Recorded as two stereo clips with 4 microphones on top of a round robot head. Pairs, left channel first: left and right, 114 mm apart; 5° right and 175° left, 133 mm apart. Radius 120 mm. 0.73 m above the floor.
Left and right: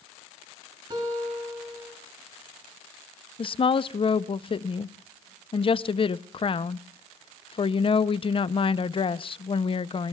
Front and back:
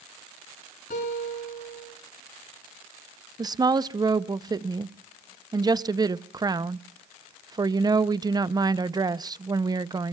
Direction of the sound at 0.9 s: 35° right.